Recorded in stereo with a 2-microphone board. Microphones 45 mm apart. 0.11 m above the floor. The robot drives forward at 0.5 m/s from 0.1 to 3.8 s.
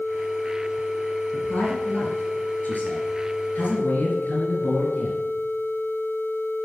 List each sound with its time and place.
1.3 s a man speaking: 35° left (ahead or behind), 2.5 m; by 5.2 s 45° left (ahead or behind), 2 m